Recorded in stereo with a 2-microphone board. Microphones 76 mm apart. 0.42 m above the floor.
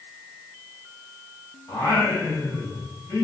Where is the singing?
25° left (ahead or behind), 1.6 m.